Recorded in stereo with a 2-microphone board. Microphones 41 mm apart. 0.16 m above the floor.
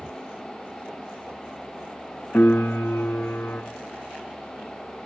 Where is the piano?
60° left (ahead or behind), 3.5 m.